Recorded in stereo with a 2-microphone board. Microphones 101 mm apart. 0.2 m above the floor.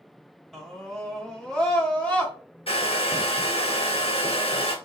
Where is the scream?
Centre (ahead or behind), 1.5 m; by 2.3 s 15° left (ahead or behind), 1.6 m.